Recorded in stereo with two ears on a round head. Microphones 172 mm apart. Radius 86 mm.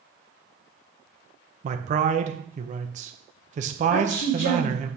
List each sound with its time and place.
1.6 s a man speaking: 40° right (ahead or behind), 0.9 m
3.9 s a woman speaking: 85° left, 4.5 m